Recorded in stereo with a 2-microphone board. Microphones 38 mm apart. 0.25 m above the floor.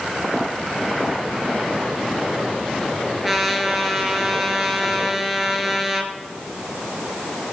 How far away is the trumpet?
About 1.6 m.